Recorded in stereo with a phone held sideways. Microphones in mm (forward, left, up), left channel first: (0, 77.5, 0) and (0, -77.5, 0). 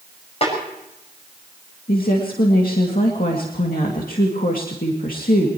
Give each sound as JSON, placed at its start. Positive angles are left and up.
{"t": 0.4, "sound": "a snare drum", "side_deg": 40, "distance_m": 5.5}
{"t": 1.9, "sound": "a woman speaking", "side_deg": 70, "distance_m": 2.5}